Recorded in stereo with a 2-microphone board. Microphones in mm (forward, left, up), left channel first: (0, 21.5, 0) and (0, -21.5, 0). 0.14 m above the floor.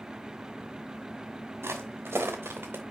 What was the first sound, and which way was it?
Footsteps, 90° right.